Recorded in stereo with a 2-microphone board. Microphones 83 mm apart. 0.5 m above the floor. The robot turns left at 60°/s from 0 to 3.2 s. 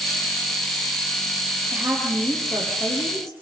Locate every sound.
1.7 s a woman speaking: 150° right, 10 m; by 3.3 s 120° left, 10 m